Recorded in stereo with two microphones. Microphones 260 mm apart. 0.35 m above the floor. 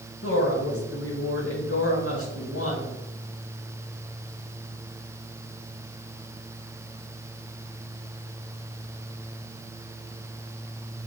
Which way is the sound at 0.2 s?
60° left (ahead or behind).